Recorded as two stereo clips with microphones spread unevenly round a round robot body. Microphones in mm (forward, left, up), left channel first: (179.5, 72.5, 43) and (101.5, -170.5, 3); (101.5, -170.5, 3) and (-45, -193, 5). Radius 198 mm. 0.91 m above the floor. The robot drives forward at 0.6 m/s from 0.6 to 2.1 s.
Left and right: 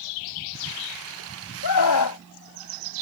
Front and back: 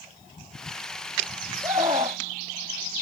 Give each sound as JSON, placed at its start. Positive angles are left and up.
{"t": 1.6, "sound": "a scream", "azimuth_deg": 110}